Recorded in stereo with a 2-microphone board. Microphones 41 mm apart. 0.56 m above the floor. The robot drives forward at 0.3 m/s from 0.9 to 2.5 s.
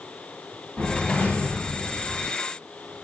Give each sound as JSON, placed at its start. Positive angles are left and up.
{"t": 0.8, "sound": "a whoosh", "side_deg": 50, "distance_m": 1.7}